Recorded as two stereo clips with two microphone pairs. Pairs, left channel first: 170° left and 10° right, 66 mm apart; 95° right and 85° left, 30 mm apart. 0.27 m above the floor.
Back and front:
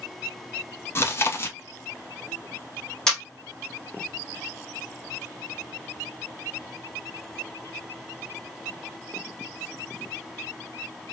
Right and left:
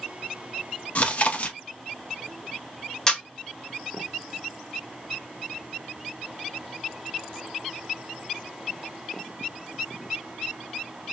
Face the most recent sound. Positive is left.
turn(degrees=-120)